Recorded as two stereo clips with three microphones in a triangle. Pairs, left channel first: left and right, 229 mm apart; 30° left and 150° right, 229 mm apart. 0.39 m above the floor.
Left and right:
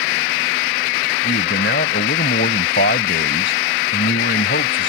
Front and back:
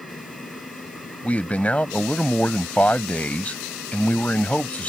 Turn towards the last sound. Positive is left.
turn(degrees=115)